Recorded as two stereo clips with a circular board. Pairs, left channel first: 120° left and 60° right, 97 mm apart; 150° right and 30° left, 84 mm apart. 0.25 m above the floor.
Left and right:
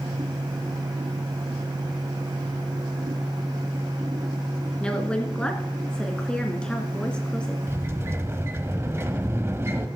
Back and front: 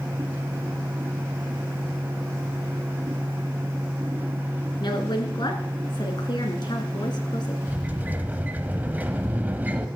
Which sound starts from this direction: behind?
A woman speaking, at 4.8 s.